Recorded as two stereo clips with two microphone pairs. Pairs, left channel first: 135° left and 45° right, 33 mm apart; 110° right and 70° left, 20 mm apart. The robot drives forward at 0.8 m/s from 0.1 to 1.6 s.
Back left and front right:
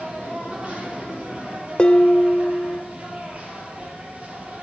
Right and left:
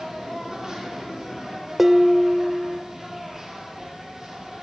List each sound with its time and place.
0.0 s an insect: straight ahead, 7.5 m
1.8 s dishes clattering: 135° left, 0.9 m